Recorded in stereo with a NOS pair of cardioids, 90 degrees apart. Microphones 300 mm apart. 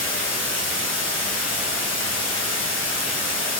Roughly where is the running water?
Ahead left.